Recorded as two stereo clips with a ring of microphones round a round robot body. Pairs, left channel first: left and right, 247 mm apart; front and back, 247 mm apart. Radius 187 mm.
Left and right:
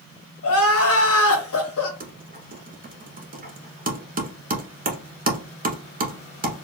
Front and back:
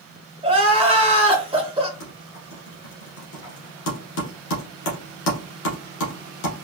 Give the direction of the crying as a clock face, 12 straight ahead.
8 o'clock.